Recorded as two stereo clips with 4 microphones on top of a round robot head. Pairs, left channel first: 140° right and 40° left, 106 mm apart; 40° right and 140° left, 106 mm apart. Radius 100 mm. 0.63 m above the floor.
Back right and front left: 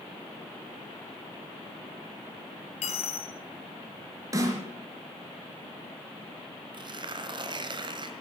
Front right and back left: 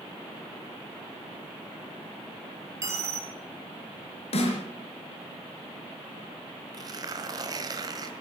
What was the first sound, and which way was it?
A dropped coin, 160° right.